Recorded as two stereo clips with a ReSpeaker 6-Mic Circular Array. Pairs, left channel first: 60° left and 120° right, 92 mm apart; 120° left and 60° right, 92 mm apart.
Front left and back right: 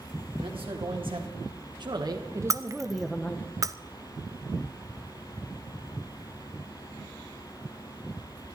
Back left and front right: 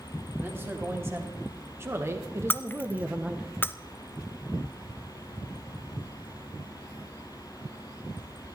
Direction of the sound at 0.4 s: 125° right.